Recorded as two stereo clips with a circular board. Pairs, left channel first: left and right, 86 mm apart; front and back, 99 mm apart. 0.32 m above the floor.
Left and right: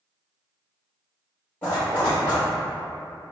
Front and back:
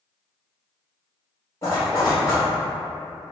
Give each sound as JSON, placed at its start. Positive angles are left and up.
{"t": 1.6, "sound": "a zipper", "azimuth_deg": 30, "distance_m": 1.9}